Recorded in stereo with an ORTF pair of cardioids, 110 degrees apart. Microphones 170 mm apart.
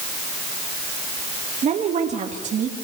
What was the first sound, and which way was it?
A woman speaking, 40° right.